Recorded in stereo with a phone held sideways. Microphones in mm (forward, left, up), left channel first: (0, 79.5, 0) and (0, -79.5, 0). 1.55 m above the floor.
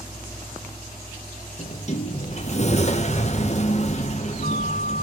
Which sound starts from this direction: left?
A sliding door, at 1.6 s.